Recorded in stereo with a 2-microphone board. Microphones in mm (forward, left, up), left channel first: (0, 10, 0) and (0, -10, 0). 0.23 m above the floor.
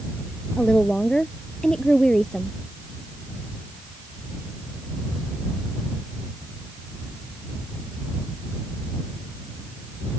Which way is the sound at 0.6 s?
45° left (ahead or behind).